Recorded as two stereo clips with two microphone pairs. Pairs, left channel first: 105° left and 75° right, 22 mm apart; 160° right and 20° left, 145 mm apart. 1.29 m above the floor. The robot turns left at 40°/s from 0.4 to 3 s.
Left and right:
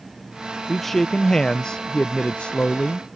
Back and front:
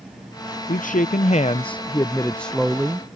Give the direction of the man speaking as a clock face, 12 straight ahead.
6 o'clock.